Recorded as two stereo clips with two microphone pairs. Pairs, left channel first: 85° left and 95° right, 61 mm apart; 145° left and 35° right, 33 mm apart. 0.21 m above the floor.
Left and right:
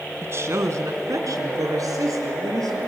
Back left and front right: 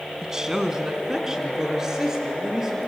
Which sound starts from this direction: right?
A woman speaking, at 0.2 s.